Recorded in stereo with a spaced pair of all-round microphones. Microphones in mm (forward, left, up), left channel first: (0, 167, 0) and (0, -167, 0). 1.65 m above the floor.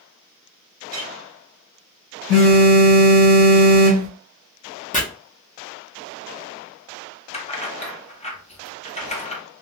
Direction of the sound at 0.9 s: 25° right (ahead or behind).